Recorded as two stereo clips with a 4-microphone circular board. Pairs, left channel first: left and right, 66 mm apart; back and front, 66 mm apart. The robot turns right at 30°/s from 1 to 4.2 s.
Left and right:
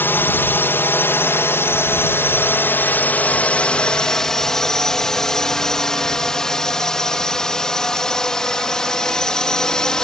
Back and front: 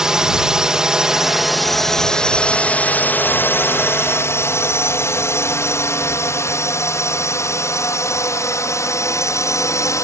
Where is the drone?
75° left; by 10.0 s 165° left.